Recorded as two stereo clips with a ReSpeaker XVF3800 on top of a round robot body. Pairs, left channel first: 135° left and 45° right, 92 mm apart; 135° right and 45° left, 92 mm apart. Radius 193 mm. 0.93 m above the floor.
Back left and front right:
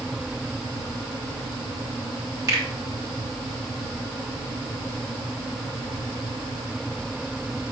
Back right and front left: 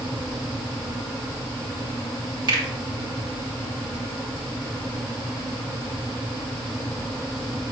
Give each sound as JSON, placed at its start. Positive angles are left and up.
{"t": 2.5, "sound": "a finger snap", "azimuth_deg": 5, "distance_m": 3.0}